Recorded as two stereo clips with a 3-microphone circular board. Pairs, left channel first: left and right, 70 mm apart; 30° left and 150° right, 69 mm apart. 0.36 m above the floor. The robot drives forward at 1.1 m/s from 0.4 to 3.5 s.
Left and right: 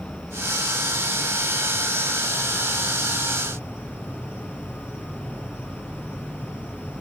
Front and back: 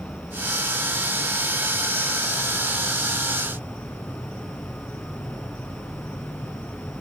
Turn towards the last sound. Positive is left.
turn(degrees=-25)